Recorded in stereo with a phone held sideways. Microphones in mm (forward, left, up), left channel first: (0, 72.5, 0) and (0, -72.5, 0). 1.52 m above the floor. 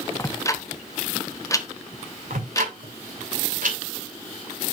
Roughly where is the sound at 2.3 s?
Right.